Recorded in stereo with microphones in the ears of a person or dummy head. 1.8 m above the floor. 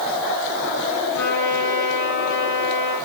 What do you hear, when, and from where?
1.1 s a trumpet: 60° left (ahead or behind), 9.5 m